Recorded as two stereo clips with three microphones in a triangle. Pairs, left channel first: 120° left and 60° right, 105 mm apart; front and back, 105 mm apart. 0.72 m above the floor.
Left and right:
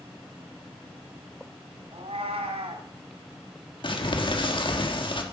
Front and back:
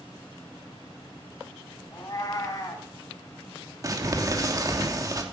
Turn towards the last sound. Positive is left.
turn(degrees=130)